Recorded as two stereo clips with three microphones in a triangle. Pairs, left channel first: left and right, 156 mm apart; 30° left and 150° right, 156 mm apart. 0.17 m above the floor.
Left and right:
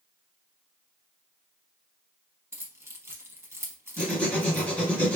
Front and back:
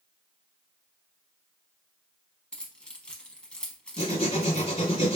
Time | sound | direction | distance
2.5 | keys jangling | 45° right | 0.7 m
4.0 | writing | 15° left | 1.4 m